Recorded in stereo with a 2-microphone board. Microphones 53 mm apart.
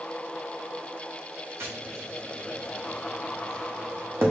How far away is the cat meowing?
No cat meowing in this recording.